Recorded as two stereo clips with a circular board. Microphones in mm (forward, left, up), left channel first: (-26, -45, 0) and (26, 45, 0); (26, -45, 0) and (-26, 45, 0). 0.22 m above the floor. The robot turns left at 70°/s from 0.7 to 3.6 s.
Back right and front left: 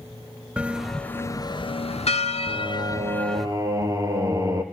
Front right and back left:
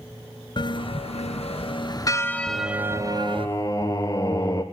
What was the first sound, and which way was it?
A bell, 20° right.